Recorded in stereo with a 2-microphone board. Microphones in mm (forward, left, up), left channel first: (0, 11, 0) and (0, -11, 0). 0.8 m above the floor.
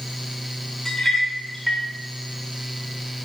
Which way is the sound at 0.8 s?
Centre (ahead or behind).